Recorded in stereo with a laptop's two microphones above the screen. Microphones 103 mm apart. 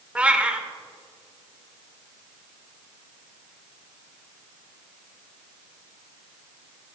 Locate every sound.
0.1 s a cat meowing: 10° right (ahead or behind), 0.7 m